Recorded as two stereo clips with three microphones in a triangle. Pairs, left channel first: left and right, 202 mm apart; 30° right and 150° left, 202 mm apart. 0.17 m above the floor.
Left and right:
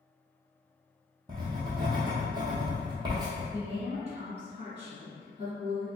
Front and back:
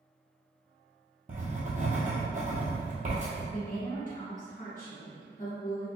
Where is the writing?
160° right, 1.0 m.